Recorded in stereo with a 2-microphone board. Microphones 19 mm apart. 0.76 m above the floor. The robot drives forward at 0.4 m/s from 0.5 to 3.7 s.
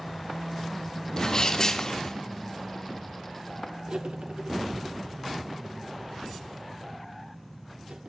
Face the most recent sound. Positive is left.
turn(degrees=-75)  # may be behind; listen again after turning